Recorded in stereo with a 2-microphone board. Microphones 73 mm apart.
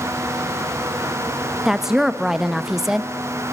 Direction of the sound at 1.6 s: 5° right (ahead or behind).